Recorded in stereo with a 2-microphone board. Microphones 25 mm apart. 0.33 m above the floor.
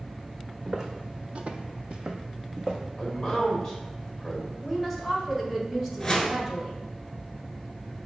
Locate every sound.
0.7 s footsteps: 25° right (ahead or behind), 0.8 m; by 2.9 s 20° right (ahead or behind), 1.1 m
3.0 s a man speaking: 15° left (ahead or behind), 1.5 m
4.6 s a woman speaking: 15° right (ahead or behind), 1.2 m
6.0 s a whoosh: 15° left (ahead or behind), 0.9 m